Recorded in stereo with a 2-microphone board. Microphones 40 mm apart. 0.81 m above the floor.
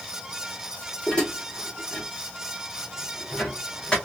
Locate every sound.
1.1 s dishes clattering: 20° left (ahead or behind), 1.4 m